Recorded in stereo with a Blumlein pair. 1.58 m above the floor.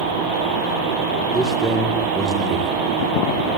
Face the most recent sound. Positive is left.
turn(degrees=-10)